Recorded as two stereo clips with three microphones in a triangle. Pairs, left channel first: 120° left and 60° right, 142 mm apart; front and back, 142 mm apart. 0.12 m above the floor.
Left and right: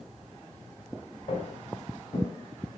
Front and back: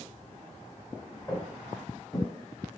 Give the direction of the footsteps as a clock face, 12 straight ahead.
10 o'clock.